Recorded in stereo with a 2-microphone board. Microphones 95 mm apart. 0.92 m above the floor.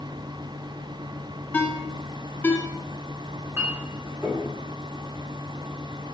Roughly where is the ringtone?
Centre.